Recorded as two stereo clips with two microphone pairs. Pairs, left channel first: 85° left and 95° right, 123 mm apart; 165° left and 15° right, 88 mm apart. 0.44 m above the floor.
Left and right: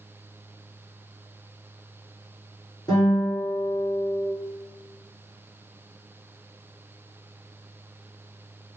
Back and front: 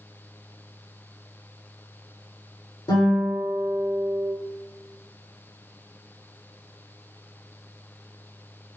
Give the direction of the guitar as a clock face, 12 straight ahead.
7 o'clock.